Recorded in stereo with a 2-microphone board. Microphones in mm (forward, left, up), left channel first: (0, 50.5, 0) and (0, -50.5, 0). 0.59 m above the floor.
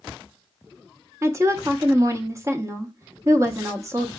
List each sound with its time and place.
1.2 s a woman speaking: 30° right (ahead or behind), 0.6 m